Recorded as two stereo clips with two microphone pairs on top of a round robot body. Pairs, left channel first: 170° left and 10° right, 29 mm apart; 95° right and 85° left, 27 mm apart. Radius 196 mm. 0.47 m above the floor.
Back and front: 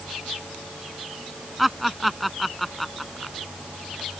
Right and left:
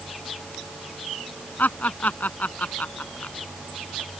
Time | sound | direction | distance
1.6 | laughter | 95° right | ?